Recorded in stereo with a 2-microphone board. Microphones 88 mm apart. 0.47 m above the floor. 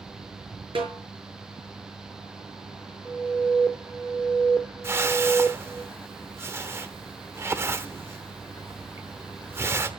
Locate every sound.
0.8 s a snare drum: 80° right, 5.5 m
3.0 s an alarm: 5° left (ahead or behind), 1.3 m
4.8 s a whoosh: 30° right (ahead or behind), 1.2 m